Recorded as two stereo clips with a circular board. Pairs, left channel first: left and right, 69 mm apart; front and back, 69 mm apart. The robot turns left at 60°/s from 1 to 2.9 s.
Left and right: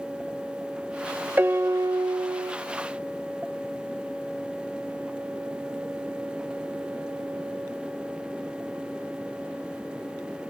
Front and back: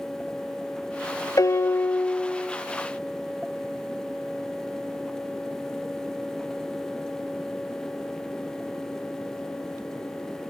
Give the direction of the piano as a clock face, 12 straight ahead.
1 o'clock.